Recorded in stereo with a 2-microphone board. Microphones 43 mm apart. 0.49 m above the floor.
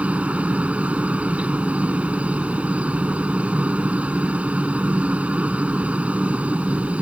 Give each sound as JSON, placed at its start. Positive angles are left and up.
{"t": 0.0, "sound": "a helicopter", "side_deg": -30}